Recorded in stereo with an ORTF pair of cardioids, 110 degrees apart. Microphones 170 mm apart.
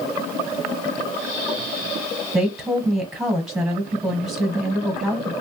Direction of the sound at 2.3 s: Straight ahead.